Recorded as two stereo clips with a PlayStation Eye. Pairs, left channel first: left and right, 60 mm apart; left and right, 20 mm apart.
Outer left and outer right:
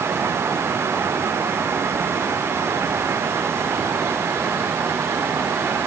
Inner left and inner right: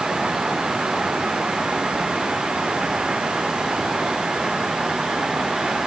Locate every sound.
Only background noise.